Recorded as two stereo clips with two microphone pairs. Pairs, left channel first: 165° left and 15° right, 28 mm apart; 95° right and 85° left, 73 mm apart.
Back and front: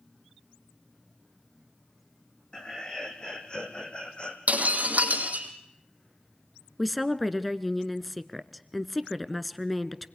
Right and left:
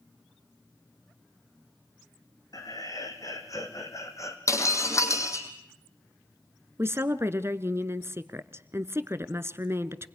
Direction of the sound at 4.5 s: 45° right.